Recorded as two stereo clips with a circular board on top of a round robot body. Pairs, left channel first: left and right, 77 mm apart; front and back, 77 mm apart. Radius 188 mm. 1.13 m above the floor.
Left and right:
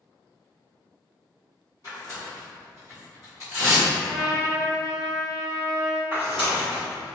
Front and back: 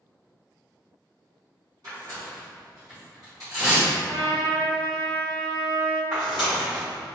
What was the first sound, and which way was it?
Tearing paper, 130° left.